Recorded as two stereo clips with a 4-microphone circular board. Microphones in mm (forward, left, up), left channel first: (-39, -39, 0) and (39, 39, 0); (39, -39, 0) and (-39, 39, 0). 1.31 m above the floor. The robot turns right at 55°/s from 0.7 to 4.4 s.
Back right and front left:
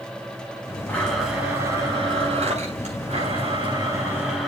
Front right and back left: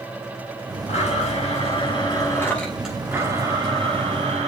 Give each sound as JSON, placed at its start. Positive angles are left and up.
{"t": 0.9, "sound": "a blender", "azimuth_deg": -60, "distance_m": 5.0}